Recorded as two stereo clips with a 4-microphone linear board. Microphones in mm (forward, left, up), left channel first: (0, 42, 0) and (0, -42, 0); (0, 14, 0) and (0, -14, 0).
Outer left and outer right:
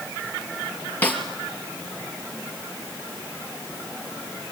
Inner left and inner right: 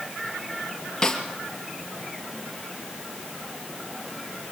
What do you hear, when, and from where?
1.0 s a snare drum: 20° left (ahead or behind), 2.5 m